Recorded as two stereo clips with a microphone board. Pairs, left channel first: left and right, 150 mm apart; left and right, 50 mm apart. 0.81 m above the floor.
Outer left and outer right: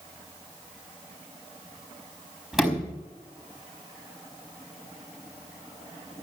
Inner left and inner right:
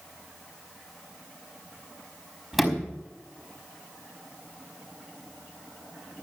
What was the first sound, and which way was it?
A sliding door, 5° right (ahead or behind).